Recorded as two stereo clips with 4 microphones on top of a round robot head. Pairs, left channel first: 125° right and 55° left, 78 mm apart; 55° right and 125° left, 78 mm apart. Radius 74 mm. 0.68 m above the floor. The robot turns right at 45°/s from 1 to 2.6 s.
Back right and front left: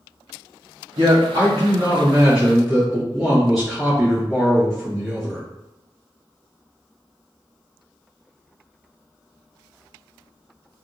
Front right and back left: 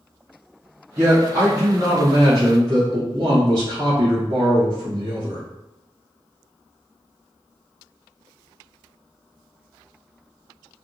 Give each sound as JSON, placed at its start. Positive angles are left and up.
{"t": 1.0, "sound": "a man speaking", "azimuth_deg": 65, "distance_m": 1.6}